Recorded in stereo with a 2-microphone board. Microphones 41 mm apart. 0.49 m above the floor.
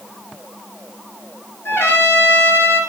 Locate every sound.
1.6 s a trumpet: 70° left (ahead or behind), 7 m